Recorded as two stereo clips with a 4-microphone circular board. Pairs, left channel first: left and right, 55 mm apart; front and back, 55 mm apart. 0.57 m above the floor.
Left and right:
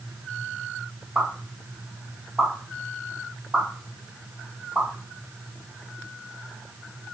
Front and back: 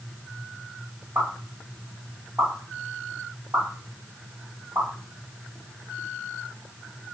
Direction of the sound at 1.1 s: 155° right.